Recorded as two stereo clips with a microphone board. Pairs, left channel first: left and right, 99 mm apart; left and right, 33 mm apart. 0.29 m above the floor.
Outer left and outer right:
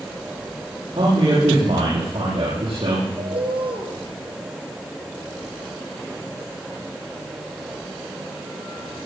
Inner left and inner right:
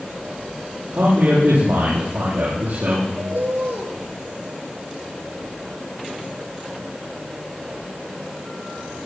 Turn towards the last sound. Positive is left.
turn(degrees=-65)  # may be behind; listen again after turning